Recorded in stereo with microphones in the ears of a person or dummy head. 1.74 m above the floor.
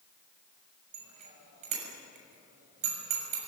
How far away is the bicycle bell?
About 7 m.